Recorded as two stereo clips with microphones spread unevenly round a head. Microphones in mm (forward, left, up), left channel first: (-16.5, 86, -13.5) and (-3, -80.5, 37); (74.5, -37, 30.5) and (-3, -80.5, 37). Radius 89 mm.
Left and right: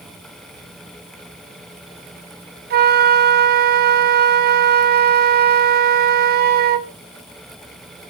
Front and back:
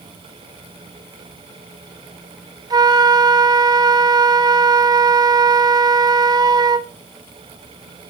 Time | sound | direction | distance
2.7 | a flute | 120° right | 1.0 m